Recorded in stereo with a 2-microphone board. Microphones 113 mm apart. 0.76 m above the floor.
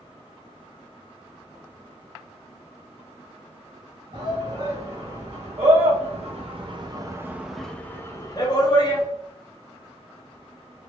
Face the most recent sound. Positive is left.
turn(degrees=45)  # may be behind; listen again after turning